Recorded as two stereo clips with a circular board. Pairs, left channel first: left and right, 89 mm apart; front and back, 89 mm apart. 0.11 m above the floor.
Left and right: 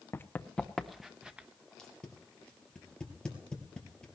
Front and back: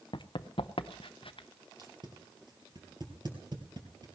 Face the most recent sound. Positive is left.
turn(degrees=170)